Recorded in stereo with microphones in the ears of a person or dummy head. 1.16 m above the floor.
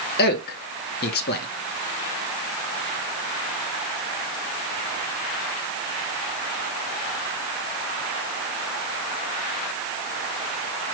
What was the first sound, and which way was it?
A man speaking, 45° left (ahead or behind).